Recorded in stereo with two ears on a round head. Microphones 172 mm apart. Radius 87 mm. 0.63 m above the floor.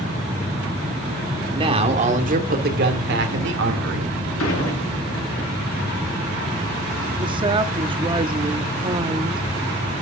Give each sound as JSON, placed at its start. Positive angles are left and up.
{"t": 1.5, "sound": "a man speaking", "side_deg": -25, "distance_m": 1.9}
{"t": 4.4, "sound": "dishes clattering", "side_deg": 85, "distance_m": 6.0}
{"t": 7.2, "sound": "a woman speaking", "side_deg": -25, "distance_m": 0.7}